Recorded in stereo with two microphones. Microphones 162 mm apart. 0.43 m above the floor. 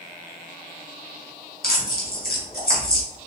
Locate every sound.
1.6 s tearing paper: 65° left (ahead or behind), 3.5 m